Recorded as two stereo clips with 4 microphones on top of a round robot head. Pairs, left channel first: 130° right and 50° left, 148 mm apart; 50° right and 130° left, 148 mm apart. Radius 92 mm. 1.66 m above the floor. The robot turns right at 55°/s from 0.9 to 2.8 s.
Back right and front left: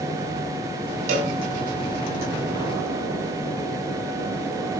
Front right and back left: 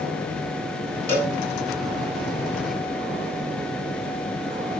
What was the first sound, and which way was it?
A cowbell, 25° left.